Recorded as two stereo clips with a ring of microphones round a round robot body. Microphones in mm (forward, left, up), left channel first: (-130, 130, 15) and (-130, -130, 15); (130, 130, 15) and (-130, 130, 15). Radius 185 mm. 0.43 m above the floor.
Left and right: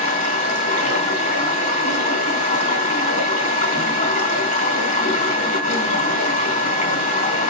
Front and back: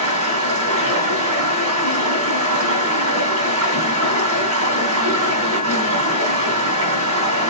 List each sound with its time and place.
0.0 s running water: 155° left, 3.5 m